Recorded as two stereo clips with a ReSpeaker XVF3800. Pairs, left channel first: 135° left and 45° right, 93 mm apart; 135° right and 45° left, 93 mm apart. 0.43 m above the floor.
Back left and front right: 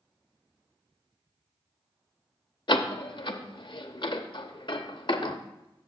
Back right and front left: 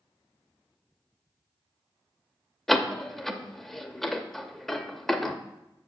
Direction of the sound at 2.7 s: 140° left.